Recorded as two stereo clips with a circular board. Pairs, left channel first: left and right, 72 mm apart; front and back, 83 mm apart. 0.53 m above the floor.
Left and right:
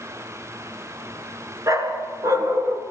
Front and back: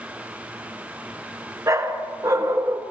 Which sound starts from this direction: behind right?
A dog barking, at 1.7 s.